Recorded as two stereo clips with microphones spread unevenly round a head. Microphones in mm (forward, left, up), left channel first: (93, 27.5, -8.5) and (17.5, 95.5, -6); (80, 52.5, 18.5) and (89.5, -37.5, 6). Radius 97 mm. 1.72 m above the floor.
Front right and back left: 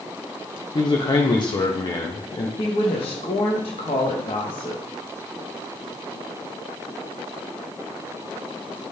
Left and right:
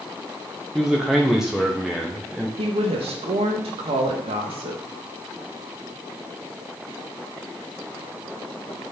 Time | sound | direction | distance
0.8 | a man speaking | straight ahead | 1.2 m
2.6 | a woman speaking | 90° right | 1.7 m